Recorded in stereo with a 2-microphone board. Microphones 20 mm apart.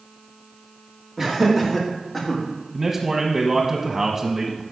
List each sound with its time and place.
1.2 s laughter: 20° right (ahead or behind), 2.5 m; by 2.4 s 10° left (ahead or behind), 2.5 m
2.7 s a man speaking: 35° right (ahead or behind), 1.0 m